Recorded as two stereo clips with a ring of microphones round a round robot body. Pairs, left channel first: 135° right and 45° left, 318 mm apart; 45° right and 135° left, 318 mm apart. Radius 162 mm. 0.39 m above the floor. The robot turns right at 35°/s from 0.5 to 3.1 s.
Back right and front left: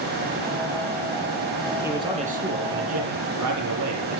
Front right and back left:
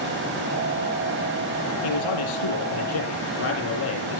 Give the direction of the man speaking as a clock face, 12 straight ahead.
1 o'clock.